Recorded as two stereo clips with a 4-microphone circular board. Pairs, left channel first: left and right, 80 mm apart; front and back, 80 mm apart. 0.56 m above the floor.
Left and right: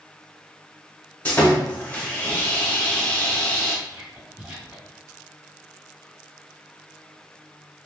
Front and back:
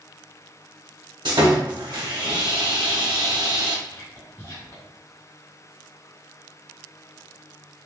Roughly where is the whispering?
Ahead.